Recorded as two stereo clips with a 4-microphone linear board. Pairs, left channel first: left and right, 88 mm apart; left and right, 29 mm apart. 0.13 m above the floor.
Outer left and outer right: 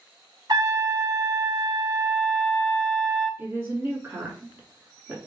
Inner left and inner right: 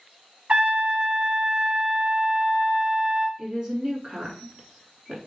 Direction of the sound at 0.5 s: 50° right (ahead or behind).